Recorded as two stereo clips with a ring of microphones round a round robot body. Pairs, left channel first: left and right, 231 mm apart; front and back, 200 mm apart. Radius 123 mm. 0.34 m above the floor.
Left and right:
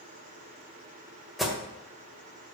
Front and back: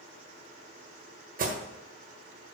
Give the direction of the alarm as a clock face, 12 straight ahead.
6 o'clock.